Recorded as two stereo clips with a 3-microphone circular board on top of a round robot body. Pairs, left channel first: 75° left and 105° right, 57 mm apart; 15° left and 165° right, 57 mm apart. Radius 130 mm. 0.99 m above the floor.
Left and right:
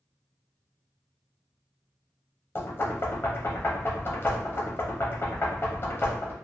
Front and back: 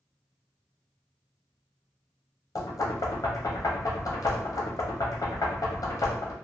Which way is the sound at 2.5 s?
25° left.